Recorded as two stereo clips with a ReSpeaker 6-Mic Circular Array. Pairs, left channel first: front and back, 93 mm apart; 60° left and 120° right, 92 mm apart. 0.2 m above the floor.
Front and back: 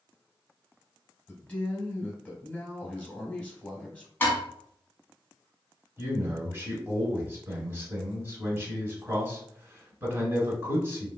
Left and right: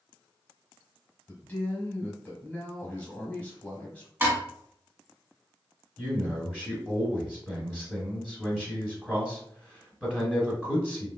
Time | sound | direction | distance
1.3 | a man speaking | 35° left | 1.0 m
4.2 | dishes clattering | 60° right | 1.2 m
6.0 | a man speaking | 165° left | 1.0 m